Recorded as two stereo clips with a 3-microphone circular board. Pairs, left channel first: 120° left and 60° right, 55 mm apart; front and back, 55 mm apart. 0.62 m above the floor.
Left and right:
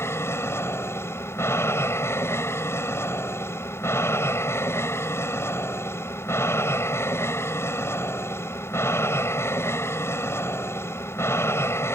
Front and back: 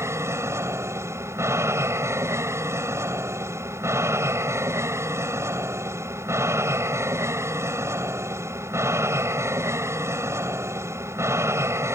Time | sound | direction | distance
0.0 | an aircraft | 155° left | ?